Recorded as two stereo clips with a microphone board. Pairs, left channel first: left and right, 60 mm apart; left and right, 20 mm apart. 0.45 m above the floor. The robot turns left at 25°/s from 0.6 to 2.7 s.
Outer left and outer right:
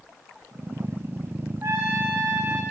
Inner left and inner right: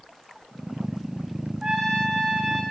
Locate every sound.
1.6 s a trumpet: 45° right (ahead or behind), 9.5 m; by 2.6 s 15° right (ahead or behind), 9.5 m